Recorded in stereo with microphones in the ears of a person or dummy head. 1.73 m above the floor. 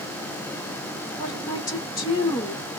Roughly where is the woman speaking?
Centre.